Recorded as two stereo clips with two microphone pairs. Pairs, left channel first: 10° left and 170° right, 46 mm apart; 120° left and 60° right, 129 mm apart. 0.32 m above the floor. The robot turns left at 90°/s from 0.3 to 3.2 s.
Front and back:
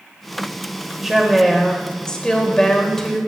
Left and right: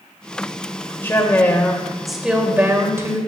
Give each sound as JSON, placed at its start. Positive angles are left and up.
{"t": 1.0, "sound": "a woman speaking", "azimuth_deg": 130, "distance_m": 1.4}